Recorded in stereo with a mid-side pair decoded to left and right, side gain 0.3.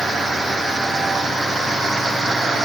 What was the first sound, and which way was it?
Only background noise.